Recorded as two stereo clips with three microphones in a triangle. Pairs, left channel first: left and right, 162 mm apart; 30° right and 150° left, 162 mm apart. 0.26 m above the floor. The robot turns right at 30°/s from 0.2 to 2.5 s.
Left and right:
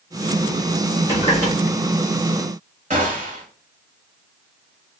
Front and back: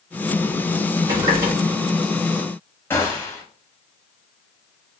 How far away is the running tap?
About 2 m.